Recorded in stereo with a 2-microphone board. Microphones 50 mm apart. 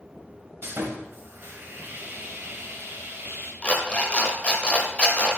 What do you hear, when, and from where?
0.6 s sawing: 50° right (ahead or behind), 0.6 m
3.6 s an alarm clock: 25° left (ahead or behind), 0.5 m